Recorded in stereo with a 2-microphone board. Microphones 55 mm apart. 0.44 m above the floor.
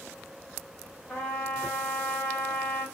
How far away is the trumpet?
About 1.9 m.